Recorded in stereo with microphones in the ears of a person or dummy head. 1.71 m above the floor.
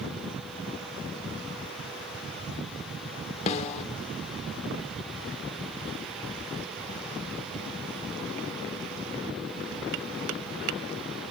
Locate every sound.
3.5 s a snare drum: 40° left (ahead or behind), 1.1 m